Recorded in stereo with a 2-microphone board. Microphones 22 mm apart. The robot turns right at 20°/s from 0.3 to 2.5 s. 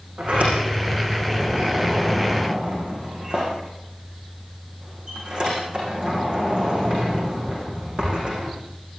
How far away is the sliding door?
About 10 m.